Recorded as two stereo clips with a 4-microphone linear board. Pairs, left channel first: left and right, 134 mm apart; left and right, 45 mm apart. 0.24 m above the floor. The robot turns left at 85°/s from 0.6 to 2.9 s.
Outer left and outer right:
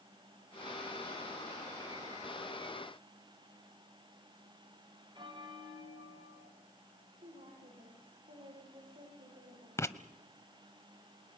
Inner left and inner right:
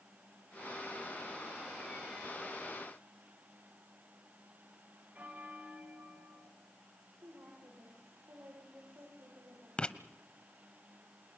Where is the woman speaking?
80° right, 8.5 m.